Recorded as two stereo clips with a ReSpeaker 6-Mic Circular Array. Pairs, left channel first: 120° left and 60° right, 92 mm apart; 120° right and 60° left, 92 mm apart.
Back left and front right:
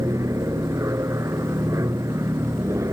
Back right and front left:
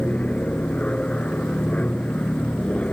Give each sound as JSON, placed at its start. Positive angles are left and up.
{"t": 0.0, "sound": "an aircraft", "azimuth_deg": -50}